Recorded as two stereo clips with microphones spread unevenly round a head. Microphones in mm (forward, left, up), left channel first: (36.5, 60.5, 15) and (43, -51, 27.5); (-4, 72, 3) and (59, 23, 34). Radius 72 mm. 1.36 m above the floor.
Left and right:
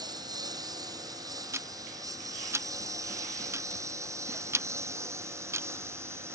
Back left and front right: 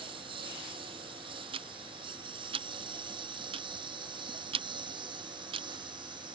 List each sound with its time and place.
0.0 s a lawn mower: 35° right; by 6.3 s 20° right
1.5 s ticking: 20° right